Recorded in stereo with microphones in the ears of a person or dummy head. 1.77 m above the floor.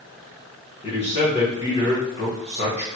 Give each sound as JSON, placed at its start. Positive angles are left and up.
{"t": 0.8, "sound": "a man speaking", "side_deg": 30, "distance_m": 1.5}